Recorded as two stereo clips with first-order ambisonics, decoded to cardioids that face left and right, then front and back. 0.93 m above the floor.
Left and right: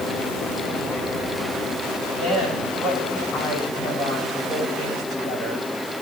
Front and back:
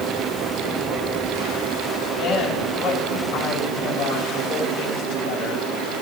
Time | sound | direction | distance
2.2 | a woman speaking | 35° left | 9.5 m